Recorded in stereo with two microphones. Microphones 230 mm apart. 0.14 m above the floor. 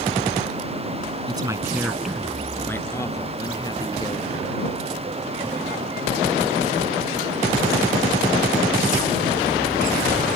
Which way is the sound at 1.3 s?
20° right (ahead or behind).